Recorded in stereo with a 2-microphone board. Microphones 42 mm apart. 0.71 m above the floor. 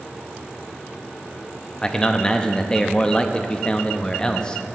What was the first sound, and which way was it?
A man speaking, 20° left (ahead or behind).